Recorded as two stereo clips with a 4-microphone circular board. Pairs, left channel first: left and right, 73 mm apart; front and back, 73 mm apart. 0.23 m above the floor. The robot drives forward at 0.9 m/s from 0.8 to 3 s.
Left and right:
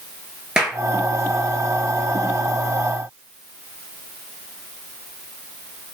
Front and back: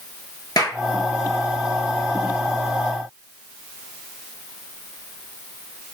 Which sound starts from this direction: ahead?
A clap, at 0.6 s.